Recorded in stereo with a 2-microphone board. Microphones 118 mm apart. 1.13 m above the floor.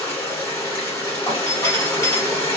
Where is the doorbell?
30° left (ahead or behind), 1.3 m.